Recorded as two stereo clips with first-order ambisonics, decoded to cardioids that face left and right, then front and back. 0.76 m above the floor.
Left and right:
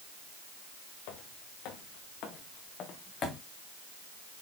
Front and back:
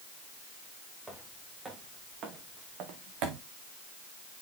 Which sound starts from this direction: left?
Footsteps, at 1.1 s.